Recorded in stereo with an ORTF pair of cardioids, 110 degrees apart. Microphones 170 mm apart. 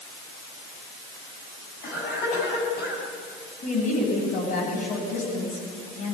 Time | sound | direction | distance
1.8 | a cough | 65° left | 9.5 m
3.6 | a woman speaking | 50° left | 9.5 m